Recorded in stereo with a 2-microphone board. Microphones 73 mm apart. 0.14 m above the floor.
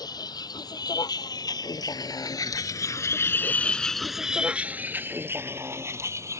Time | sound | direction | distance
0.0 | a vehicle | 70° left (ahead or behind) | ?